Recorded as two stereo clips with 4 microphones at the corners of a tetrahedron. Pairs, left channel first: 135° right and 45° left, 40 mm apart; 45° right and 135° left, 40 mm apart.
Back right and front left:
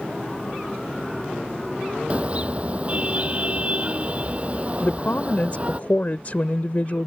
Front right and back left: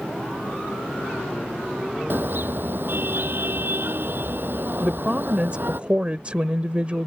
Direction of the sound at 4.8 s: 170° right.